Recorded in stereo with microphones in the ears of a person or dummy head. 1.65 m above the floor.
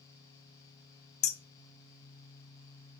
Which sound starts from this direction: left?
Hammering, at 1.2 s.